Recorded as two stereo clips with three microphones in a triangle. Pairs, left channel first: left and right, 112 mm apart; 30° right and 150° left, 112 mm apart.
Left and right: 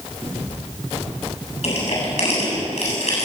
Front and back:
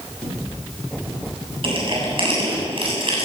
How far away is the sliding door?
No sliding door in this recording.